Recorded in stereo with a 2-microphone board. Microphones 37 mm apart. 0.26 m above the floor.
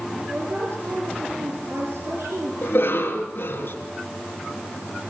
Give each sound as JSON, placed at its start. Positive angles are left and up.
{"t": 0.3, "sound": "a woman speaking", "side_deg": -70, "distance_m": 5.5}
{"t": 2.6, "sound": "a cough", "side_deg": 60, "distance_m": 3.0}